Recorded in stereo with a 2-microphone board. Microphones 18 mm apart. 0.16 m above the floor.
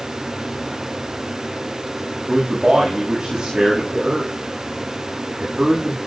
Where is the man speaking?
25° right (ahead or behind), 9.5 m.